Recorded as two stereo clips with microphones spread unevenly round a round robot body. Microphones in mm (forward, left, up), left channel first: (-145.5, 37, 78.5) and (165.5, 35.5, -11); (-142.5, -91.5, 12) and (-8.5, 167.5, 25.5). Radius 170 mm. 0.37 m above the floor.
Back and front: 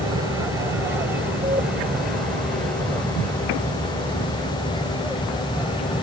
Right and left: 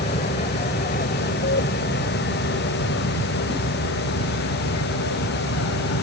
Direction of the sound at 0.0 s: 55° right.